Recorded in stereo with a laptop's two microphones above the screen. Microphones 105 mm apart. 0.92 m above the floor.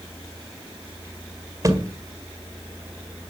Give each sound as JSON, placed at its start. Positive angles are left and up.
{"t": 1.6, "sound": "a thud", "side_deg": -30, "distance_m": 1.9}